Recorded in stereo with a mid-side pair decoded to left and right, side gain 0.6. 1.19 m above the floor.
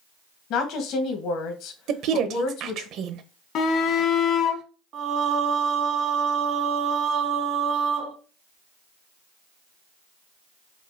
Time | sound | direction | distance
0.5 | a woman speaking | 65° left | 1.1 m
1.9 | a woman speaking | 60° right | 0.8 m
3.5 | a shout | 55° left | 1.0 m
4.9 | singing | 60° right | 1.0 m